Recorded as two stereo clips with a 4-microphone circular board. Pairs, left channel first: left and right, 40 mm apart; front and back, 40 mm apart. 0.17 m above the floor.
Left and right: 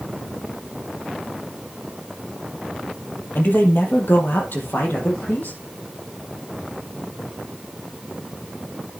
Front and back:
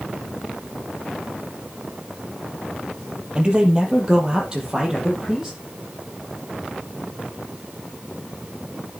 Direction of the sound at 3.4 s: 115° left.